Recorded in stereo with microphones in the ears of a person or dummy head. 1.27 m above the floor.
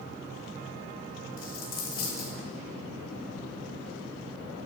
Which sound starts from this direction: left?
A dropped coin, at 1.4 s.